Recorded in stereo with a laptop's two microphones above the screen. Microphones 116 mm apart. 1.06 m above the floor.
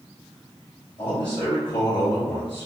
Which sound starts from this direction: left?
A man speaking, at 1.0 s.